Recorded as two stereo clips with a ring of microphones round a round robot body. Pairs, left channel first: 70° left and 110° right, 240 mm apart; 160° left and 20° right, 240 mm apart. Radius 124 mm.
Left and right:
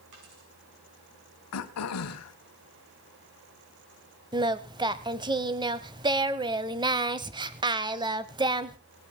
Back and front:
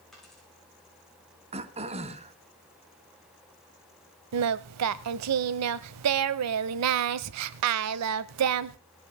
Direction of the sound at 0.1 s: 115° right.